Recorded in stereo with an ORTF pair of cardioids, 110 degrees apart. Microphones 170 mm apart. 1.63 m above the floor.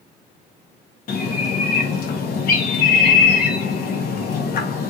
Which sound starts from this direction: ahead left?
A bird, at 1.1 s.